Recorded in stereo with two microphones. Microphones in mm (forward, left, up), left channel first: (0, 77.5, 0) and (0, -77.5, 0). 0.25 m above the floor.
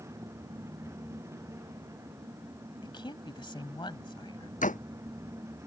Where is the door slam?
55° left (ahead or behind).